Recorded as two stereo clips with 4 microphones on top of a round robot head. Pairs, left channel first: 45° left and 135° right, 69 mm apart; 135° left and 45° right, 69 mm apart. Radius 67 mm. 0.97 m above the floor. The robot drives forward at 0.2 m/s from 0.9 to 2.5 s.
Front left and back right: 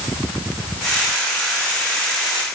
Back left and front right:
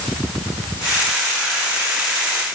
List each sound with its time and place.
Only background noise.